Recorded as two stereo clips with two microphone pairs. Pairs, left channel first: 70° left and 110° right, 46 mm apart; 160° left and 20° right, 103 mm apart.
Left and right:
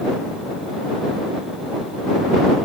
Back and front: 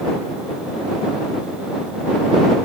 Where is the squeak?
I don't hear a squeak.